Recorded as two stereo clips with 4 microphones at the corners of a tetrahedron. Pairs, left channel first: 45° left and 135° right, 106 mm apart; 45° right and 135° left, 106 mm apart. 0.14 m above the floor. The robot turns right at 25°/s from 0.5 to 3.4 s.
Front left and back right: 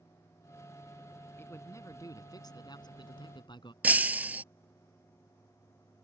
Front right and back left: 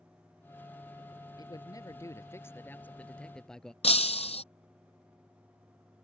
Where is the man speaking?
15° right; by 3.7 s 35° left.